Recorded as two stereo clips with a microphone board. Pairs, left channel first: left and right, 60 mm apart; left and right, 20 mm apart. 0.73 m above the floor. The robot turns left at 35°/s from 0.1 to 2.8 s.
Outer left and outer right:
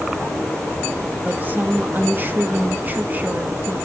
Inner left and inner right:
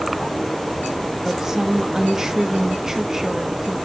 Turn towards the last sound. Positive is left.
turn(degrees=-115)